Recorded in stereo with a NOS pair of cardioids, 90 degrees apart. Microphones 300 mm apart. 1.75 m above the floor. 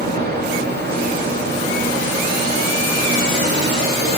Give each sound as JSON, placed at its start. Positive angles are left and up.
{"t": 0.0, "sound": "a fan", "azimuth_deg": -35, "distance_m": 7.5}